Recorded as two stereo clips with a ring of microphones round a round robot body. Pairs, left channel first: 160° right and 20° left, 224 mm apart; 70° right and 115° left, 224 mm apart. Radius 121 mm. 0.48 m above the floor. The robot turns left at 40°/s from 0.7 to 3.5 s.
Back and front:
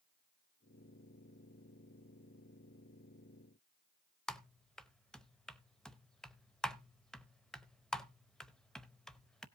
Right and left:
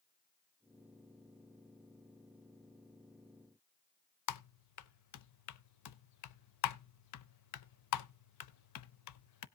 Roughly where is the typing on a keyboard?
Right.